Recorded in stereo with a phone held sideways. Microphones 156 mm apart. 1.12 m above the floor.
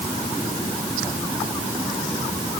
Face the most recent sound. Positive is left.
No sound to turn to.